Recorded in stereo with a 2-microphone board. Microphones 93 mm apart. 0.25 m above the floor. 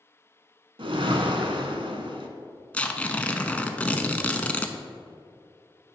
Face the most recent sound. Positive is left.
turn(degrees=15)  # may be behind; listen again after turning